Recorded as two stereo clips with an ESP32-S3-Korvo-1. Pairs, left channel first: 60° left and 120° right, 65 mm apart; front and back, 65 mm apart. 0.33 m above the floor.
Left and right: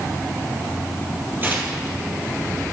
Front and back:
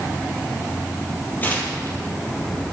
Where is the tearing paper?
60° right, 2.5 m.